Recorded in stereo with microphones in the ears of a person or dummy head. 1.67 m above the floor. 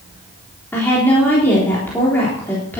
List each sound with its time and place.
0.7 s a woman speaking: 15° left (ahead or behind), 3.5 m